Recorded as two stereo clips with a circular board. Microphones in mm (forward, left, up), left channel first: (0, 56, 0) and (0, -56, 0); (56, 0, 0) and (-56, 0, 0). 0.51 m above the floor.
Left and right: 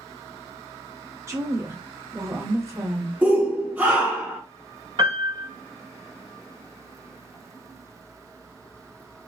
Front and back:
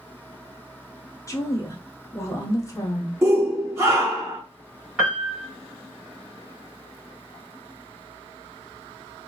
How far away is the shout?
About 1.1 m.